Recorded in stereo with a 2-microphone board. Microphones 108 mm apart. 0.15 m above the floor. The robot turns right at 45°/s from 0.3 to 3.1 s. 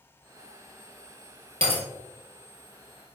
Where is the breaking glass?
55° right (ahead or behind), 1.7 m; by 1.8 s 65° right (ahead or behind), 1.7 m.